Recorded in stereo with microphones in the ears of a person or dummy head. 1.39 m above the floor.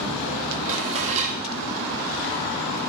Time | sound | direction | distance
0.7 | dishes clattering | 35° right (ahead or behind) | 2 m